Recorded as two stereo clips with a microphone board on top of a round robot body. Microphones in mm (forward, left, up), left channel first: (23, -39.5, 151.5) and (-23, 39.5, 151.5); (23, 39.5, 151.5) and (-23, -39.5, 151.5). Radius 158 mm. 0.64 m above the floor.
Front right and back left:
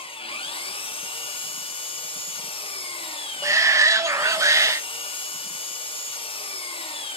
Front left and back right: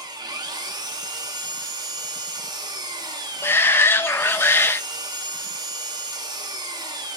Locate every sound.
0.0 s an engine running: 75° right, 1.2 m
3.4 s a shout: 105° left, 0.7 m